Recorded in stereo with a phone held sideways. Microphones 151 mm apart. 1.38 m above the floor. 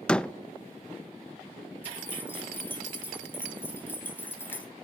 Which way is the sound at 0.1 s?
5° left (ahead or behind).